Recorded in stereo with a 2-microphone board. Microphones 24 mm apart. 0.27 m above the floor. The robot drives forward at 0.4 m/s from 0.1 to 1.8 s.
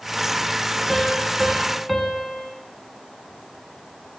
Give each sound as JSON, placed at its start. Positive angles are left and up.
{"t": 0.9, "sound": "a piano", "side_deg": 0, "distance_m": 1.3}